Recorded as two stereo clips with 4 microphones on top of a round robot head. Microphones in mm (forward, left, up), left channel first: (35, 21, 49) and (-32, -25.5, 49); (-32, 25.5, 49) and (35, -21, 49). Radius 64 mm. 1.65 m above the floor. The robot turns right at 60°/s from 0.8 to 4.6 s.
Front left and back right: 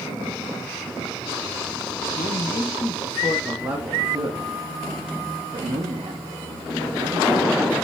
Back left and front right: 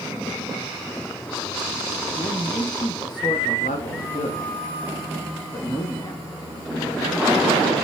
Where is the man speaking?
45° left, 0.9 m; by 7.7 s 165° right, 0.9 m.